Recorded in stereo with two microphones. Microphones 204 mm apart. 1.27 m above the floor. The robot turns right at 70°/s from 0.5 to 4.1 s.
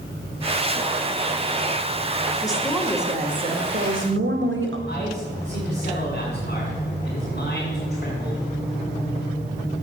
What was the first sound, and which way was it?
A woman speaking, 155° left.